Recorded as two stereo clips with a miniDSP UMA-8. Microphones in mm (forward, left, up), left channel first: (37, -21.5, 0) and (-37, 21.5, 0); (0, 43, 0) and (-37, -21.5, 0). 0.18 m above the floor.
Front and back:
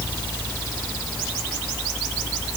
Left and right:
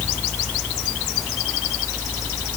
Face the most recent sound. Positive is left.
No sound to turn to.